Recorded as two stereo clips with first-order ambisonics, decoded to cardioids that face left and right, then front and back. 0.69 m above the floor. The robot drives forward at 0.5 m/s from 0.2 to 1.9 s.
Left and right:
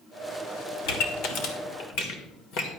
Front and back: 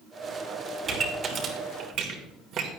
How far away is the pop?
About 1.5 m.